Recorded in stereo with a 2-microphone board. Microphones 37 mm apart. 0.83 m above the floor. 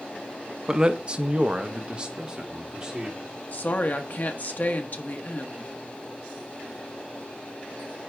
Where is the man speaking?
20° right (ahead or behind), 0.6 m.